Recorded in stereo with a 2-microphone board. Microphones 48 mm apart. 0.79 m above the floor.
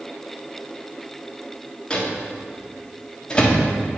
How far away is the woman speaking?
I don't hear a woman speaking.